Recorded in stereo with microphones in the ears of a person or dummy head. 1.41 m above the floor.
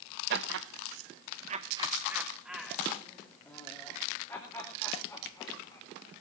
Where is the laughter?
75° right (ahead or behind), 1.2 m; by 5.8 s 25° left (ahead or behind), 5.5 m.